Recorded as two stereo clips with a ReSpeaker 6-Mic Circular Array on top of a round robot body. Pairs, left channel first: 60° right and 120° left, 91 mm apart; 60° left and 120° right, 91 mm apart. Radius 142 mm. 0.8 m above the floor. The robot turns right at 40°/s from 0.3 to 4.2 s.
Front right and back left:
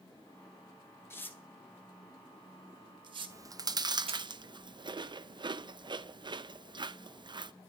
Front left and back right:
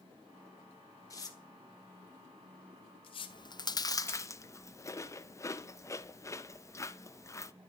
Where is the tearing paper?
5° left, 1.9 m; by 4.2 s 130° left, 1.9 m.